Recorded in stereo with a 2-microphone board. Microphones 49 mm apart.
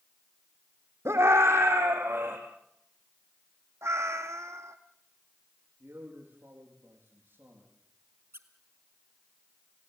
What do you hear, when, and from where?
1.1 s a scream: 70° right (ahead or behind), 6 m; by 2.4 s 55° right (ahead or behind), 5.5 m
3.8 s a cat meowing: 75° right (ahead or behind), 1.7 m
5.8 s a man speaking: 50° right (ahead or behind), 8 m
8.3 s a squeak: 60° right (ahead or behind), 1.7 m